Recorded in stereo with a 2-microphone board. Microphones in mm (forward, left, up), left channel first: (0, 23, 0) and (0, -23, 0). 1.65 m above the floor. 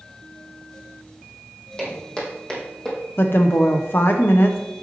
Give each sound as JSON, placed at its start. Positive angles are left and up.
{"t": 1.8, "sound": "footsteps", "side_deg": 20, "distance_m": 4.5}
{"t": 3.2, "sound": "a woman speaking", "side_deg": 55, "distance_m": 0.8}